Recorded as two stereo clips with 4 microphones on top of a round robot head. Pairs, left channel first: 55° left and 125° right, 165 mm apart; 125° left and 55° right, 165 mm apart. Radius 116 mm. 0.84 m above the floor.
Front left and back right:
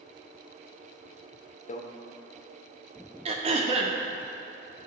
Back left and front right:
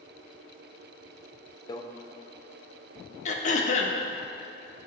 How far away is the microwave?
About 0.8 m.